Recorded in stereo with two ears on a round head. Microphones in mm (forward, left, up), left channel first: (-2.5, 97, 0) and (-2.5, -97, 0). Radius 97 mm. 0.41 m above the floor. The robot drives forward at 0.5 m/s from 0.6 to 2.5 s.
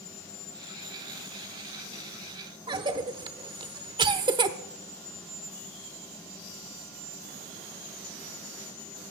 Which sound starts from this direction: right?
A cough, at 2.7 s.